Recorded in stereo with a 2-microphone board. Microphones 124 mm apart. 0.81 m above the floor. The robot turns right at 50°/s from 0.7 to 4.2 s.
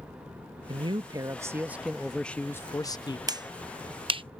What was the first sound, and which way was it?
A man speaking, 65° right.